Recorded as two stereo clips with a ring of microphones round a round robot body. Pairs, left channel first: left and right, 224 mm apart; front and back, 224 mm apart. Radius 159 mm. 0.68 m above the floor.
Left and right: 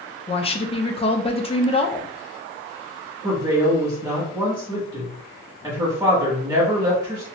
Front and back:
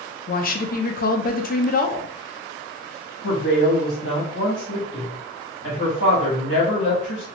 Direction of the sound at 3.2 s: 15° right.